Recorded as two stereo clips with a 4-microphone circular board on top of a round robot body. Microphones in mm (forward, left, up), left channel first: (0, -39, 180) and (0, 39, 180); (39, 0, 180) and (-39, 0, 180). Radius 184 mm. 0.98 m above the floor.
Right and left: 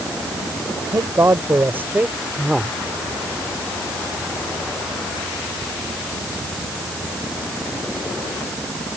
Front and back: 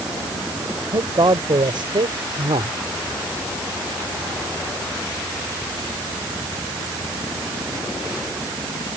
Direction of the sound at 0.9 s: 145° left.